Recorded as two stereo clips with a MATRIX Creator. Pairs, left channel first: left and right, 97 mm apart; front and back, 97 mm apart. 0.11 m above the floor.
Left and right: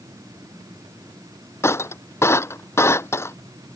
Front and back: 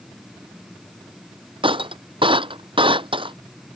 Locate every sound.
1.6 s breaking glass: 150° left